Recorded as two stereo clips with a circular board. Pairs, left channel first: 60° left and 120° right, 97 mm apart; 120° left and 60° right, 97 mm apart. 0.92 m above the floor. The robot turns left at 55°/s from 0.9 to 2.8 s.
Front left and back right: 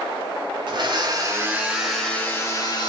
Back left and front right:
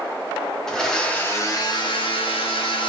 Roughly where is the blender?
Behind right.